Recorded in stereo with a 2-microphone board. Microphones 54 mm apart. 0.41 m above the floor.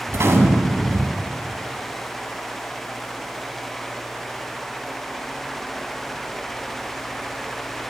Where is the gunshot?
55° right (ahead or behind), 0.7 m.